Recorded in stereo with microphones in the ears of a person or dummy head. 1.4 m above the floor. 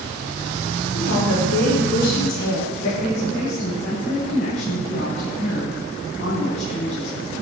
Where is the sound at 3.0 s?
45° left (ahead or behind), 8 m.